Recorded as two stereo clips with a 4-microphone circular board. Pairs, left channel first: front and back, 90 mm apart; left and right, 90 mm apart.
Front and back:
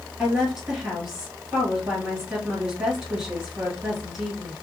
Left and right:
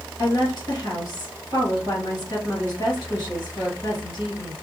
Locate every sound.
0.2 s a woman speaking: 100° left, 2 m